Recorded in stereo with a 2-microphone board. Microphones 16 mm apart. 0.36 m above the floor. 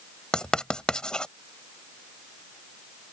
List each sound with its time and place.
0.3 s writing: 55° left (ahead or behind)